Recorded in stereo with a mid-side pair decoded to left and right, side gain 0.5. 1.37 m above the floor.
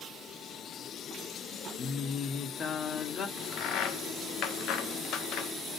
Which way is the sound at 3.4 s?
65° left.